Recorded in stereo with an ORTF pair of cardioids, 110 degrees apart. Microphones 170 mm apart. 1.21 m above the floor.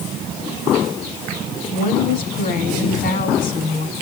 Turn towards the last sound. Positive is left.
turn(degrees=60)